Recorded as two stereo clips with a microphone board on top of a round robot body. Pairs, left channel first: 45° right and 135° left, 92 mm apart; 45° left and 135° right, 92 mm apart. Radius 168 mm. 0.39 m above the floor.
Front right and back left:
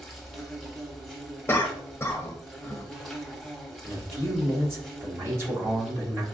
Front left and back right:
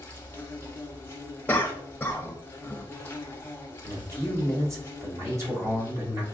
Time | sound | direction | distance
0.0 | an insect | 45° left | 1.2 m
1.5 | a cough | 5° right | 0.8 m
3.8 | a man speaking | 175° right | 1.8 m